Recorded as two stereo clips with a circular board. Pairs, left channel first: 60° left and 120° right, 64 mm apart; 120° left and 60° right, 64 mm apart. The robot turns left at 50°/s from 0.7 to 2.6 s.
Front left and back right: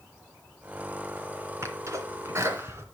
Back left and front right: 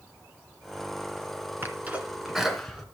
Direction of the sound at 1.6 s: 105° right.